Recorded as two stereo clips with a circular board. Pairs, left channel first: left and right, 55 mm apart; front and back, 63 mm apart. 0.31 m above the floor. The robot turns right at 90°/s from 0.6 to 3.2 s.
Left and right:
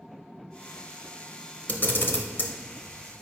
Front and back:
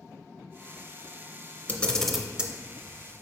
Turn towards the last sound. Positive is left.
turn(degrees=-175)